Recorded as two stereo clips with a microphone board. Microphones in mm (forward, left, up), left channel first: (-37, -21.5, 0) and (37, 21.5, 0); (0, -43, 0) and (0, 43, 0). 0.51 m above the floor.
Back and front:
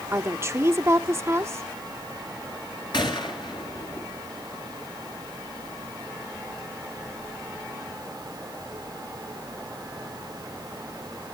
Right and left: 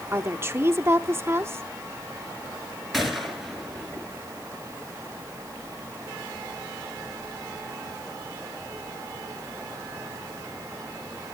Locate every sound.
0.1 s a woman speaking: 60° left, 0.8 m
2.9 s a gunshot: straight behind, 2 m